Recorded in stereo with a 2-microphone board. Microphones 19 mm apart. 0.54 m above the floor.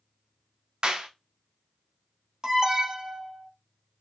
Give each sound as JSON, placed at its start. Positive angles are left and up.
{"t": 0.8, "sound": "a clap", "side_deg": -50, "distance_m": 0.6}
{"t": 2.4, "sound": "an alarm", "side_deg": -30, "distance_m": 0.8}